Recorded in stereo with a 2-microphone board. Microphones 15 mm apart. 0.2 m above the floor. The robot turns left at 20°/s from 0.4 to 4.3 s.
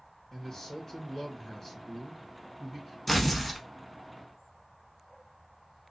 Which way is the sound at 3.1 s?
10° left (ahead or behind).